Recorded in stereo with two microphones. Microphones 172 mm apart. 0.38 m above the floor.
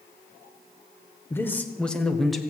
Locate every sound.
1.3 s a man speaking: 15° left (ahead or behind), 1.3 m; by 2.4 s centre (ahead or behind), 1.7 m